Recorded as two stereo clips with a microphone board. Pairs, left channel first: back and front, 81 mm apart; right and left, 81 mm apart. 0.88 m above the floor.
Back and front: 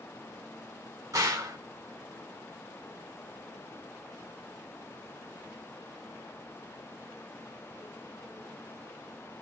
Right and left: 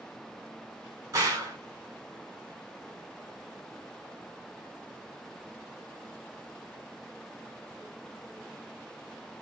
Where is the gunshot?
40° left, 1.9 m.